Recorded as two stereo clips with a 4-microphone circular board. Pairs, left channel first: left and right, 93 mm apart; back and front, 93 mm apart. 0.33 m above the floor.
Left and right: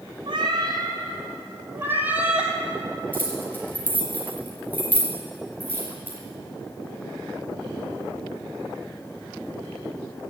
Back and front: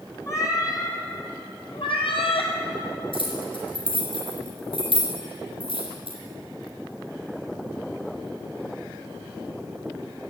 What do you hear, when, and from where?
0.3 s a cat meowing: 125° right, 1.9 m; by 2.5 s 170° right, 1.8 m
3.1 s keys jangling: 160° left, 3.5 m